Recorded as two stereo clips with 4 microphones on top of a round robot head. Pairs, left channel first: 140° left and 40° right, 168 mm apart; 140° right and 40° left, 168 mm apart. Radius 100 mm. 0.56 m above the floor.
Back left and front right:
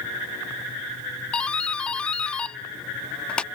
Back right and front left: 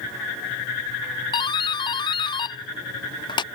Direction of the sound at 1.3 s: 140° right.